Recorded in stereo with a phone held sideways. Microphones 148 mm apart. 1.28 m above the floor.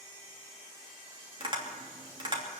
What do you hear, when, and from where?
1.4 s tapping: 35° right (ahead or behind), 3 m